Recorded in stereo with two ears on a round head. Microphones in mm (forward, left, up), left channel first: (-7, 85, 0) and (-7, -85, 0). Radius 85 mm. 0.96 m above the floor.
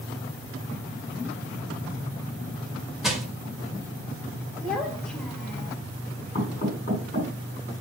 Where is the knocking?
35° left (ahead or behind), 5 m.